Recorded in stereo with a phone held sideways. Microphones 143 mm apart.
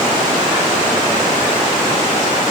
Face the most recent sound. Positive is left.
No sound to turn to.